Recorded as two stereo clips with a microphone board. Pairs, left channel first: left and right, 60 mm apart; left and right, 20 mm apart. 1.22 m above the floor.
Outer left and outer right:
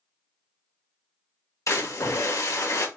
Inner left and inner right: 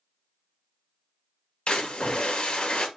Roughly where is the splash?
Left.